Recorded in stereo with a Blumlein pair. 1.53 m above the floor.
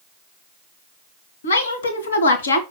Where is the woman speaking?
70° left, 1.9 m.